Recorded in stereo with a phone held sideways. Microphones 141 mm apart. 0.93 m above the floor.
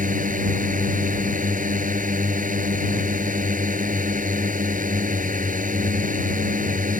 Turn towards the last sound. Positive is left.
turn(degrees=-70)  # may be behind; listen again after turning